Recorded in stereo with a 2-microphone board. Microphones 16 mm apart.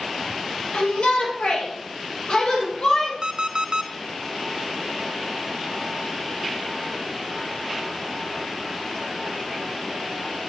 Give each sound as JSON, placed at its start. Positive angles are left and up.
{"t": 0.7, "sound": "a shout", "side_deg": 70, "distance_m": 4.0}
{"t": 3.2, "sound": "an alarm clock", "side_deg": -45, "distance_m": 0.7}